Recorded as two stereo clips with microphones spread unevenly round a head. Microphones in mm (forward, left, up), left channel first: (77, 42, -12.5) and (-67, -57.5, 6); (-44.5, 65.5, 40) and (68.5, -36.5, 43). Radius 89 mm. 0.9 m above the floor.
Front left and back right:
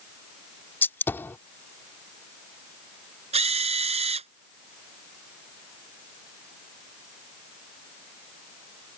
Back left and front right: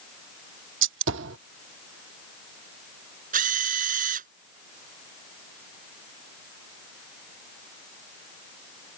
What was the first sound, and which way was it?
A gunshot, 45° right.